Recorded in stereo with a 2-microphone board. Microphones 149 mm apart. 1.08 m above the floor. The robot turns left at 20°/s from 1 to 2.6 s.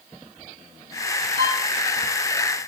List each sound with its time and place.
1.4 s a violin: 85° right, 3.5 m; by 1.6 s 80° right, 3.5 m